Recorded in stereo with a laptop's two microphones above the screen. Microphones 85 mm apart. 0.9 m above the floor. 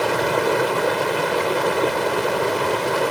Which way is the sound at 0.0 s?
Centre (ahead or behind).